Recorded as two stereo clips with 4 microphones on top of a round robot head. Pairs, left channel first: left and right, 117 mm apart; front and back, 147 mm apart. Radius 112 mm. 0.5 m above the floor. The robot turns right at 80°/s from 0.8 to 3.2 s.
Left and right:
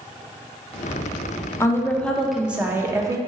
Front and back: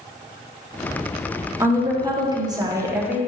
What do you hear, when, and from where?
1.6 s a woman speaking: 125° left, 0.8 m; by 3.2 s 110° right, 0.8 m